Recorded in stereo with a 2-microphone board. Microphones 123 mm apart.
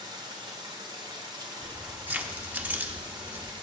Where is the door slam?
I don't hear a door slam.